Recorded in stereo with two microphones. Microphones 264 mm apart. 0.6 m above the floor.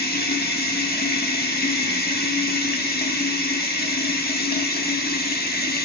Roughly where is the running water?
Left.